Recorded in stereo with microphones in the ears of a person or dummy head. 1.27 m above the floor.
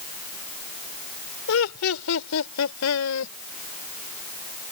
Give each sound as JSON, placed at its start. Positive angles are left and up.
{"t": 1.5, "sound": "laughter", "side_deg": 80}